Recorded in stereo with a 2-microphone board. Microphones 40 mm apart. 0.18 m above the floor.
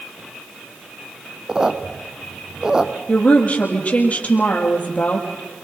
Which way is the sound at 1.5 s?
15° right (ahead or behind).